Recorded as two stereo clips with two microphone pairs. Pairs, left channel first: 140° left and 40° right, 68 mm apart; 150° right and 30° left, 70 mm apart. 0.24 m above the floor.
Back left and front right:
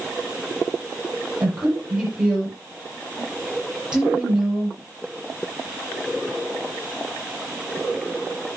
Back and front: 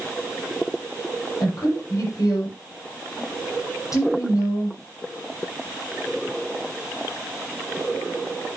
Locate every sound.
1.4 s a woman speaking: 120° right, 6.5 m